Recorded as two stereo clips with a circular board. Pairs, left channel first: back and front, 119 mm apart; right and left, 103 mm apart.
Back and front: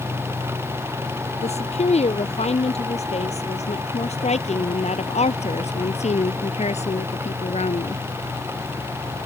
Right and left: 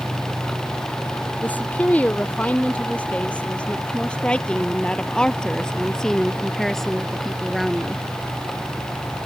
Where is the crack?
No crack in this recording.